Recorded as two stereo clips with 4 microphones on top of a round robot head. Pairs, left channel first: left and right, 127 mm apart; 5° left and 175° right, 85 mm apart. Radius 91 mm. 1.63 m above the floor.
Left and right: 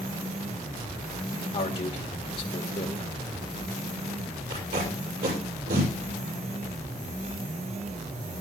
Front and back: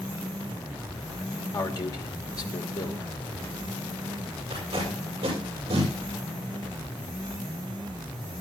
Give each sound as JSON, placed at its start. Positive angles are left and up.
{"t": 1.5, "sound": "a man speaking", "azimuth_deg": 45, "distance_m": 1.5}
{"t": 4.5, "sound": "tape being pulled", "azimuth_deg": -120, "distance_m": 6.5}